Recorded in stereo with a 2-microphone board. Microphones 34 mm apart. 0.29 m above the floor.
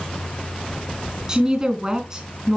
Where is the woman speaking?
20° right (ahead or behind), 3 m.